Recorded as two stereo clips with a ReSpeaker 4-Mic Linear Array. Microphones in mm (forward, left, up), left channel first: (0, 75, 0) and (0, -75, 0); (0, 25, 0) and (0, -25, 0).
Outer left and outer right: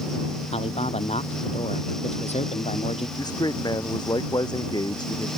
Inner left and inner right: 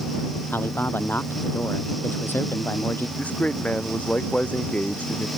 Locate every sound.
0.5 s a man speaking: 45° left (ahead or behind)
3.2 s a man speaking: 25° left (ahead or behind)